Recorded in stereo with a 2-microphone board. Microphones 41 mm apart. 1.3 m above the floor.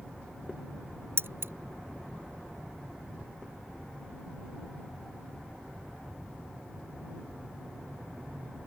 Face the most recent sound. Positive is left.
turn(degrees=-70)  # may be behind; listen again after turning